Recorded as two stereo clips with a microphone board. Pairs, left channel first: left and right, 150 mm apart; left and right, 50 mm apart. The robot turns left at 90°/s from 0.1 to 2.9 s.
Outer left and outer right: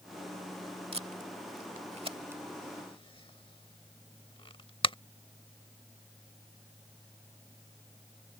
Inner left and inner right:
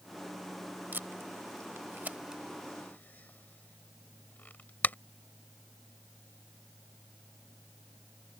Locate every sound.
0.9 s tape being pulled: 40° right (ahead or behind); by 5.0 s 35° left (ahead or behind)